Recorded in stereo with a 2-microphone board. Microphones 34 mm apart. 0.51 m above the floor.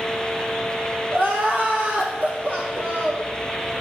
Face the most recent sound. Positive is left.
turn(degrees=-75)  # may be behind; listen again after turning